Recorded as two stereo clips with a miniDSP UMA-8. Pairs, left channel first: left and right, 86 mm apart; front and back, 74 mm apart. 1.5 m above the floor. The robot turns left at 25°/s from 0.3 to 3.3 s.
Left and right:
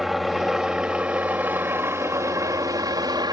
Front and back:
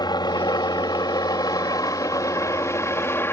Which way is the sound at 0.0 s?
Straight ahead.